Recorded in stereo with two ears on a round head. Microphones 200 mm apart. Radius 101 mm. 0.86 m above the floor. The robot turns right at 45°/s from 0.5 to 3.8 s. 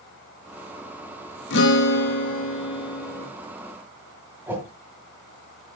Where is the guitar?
90° left, 1.5 m; by 3.2 s 170° left, 1.5 m.